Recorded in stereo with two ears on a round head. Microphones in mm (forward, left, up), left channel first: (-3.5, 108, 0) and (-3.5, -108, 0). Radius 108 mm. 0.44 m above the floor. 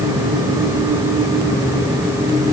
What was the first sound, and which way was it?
Only background noise.